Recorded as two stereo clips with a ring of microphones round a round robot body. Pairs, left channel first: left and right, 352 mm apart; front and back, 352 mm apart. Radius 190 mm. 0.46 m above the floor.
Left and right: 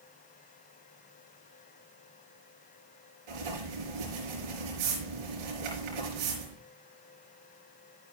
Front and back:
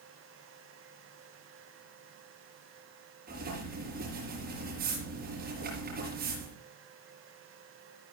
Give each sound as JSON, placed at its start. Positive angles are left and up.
{"t": 3.3, "sound": "writing", "azimuth_deg": -110, "distance_m": 5.0}